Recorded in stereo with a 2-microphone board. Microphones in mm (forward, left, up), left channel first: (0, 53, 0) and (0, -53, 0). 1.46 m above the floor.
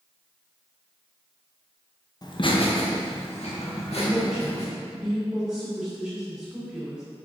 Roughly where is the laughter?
Left.